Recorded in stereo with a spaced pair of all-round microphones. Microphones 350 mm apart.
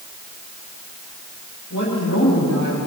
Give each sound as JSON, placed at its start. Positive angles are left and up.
{"t": 1.7, "sound": "a woman speaking", "side_deg": 50, "distance_m": 8.5}